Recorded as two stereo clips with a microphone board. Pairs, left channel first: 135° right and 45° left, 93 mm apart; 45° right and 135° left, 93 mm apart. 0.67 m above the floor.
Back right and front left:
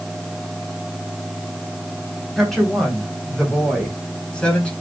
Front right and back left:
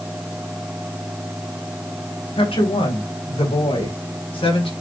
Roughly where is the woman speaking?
Ahead right.